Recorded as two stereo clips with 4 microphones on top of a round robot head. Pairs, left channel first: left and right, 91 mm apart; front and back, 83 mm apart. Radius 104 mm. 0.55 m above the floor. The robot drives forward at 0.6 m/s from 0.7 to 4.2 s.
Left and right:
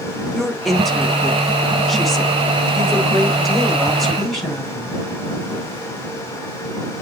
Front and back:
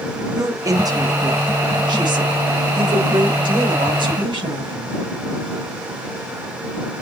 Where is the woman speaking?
175° left, 1.5 m; by 5.0 s straight behind, 3.5 m.